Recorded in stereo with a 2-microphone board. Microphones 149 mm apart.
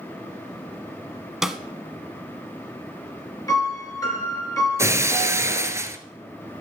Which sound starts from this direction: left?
A piano, at 3.5 s.